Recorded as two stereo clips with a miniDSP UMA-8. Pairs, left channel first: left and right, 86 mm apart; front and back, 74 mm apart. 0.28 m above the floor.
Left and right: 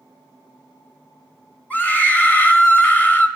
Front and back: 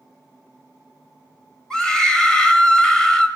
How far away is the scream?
About 1.1 m.